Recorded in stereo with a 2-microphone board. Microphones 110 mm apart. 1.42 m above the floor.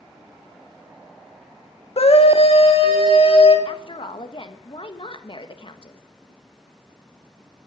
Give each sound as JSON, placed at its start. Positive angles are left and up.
{"t": 2.0, "sound": "a scream", "side_deg": 65, "distance_m": 1.8}
{"t": 3.6, "sound": "a woman speaking", "side_deg": 50, "distance_m": 1.5}